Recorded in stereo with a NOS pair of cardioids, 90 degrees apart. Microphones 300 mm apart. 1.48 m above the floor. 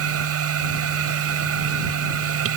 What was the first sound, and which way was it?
A machine running, 60° right.